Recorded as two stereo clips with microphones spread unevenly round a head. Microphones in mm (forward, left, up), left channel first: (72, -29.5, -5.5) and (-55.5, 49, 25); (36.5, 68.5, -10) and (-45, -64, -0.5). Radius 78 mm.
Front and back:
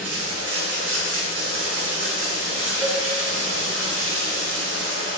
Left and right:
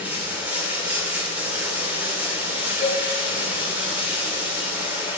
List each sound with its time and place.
0.0 s running water: 160° left, 2.5 m
2.8 s a cowbell: 100° right, 3.5 m